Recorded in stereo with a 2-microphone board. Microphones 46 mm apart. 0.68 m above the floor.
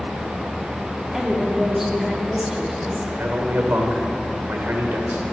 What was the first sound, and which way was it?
A woman speaking, 5° right (ahead or behind).